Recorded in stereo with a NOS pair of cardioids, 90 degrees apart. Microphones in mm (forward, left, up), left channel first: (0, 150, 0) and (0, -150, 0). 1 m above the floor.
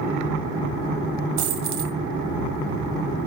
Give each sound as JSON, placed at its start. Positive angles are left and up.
{"t": 1.4, "sound": "a dropped coin", "azimuth_deg": -70, "distance_m": 1.8}